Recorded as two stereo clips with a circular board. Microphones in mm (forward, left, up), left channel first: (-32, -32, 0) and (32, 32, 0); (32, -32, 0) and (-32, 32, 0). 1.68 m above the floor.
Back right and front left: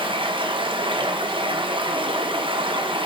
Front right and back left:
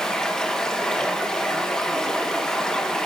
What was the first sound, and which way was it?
Running water, 35° left.